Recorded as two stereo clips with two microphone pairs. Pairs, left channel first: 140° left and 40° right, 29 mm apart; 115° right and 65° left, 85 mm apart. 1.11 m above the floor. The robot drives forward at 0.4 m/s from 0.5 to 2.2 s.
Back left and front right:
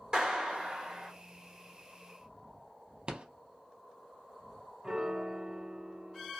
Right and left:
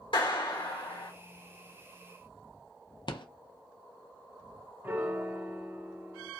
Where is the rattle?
90° right, 0.5 m.